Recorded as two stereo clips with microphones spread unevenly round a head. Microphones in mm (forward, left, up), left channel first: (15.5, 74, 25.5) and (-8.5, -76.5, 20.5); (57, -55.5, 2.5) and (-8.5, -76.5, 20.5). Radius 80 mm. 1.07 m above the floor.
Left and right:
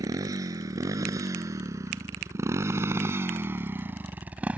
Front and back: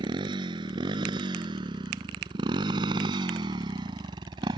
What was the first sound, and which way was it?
A motorcycle, 170° right.